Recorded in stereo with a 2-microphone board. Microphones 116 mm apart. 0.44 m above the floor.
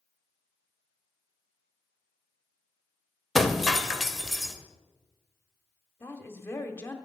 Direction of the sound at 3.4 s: Centre (ahead or behind).